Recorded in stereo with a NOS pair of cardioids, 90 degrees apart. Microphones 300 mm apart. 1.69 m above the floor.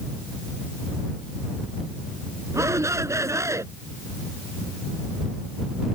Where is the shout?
10° right.